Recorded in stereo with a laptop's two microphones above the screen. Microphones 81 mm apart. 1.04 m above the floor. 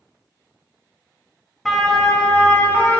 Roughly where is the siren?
Centre.